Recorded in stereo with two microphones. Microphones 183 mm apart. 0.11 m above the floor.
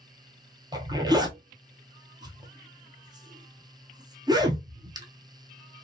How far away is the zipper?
About 0.7 m.